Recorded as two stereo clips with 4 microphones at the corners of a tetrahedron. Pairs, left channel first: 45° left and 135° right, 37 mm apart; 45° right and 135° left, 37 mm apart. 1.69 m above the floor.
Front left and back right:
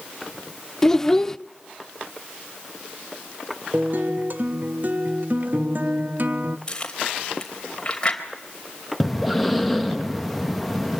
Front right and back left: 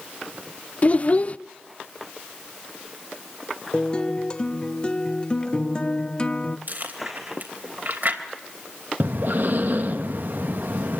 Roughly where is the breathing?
Behind left.